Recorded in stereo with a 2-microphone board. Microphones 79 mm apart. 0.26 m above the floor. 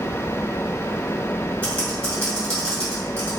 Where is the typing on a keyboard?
15° left (ahead or behind), 1.8 m.